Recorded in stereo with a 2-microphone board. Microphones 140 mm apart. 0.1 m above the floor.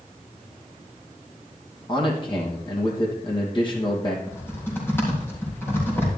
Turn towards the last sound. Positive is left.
turn(degrees=15)  # may be behind; listen again after turning